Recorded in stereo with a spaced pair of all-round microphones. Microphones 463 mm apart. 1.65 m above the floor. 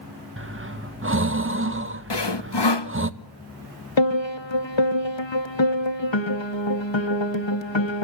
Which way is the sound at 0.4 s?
25° right (ahead or behind).